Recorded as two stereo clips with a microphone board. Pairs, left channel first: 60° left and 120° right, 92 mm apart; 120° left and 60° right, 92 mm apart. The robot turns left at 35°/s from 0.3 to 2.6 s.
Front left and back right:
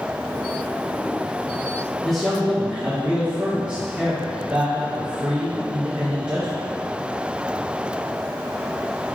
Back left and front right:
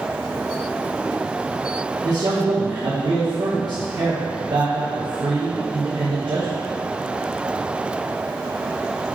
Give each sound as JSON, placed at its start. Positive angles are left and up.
{"t": 2.0, "sound": "a man speaking", "azimuth_deg": -25, "distance_m": 1.0}